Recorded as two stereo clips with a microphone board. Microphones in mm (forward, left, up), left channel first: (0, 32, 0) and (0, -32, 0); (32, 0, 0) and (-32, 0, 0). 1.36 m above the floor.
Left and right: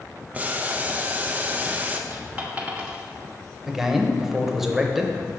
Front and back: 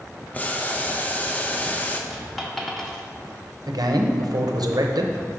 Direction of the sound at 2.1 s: 80° right.